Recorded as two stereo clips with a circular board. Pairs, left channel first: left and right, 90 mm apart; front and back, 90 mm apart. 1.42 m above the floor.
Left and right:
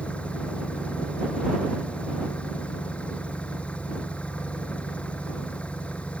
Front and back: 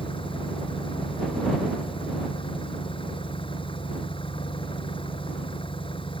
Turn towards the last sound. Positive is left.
turn(degrees=15)